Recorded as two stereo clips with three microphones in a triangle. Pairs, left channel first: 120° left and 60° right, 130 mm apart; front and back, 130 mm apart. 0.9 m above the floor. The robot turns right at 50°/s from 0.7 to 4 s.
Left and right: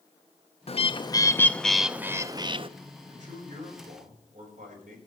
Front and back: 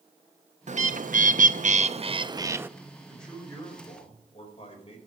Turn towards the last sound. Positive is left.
turn(degrees=-45)